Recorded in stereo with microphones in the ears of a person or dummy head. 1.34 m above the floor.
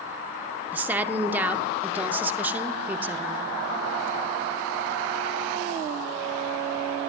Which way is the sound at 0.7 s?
10° right (ahead or behind).